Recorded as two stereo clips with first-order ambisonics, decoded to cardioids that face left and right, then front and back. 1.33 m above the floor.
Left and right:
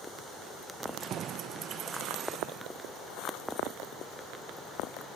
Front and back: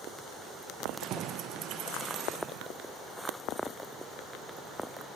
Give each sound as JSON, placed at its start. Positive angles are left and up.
{"t": 0.8, "sound": "keys jangling", "azimuth_deg": -140, "distance_m": 0.7}